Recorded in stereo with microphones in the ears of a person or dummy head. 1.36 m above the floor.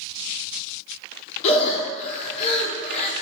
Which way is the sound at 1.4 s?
40° left (ahead or behind).